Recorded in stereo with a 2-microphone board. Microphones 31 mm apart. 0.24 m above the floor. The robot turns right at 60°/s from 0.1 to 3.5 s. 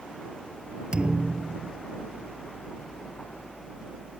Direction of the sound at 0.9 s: 155° right.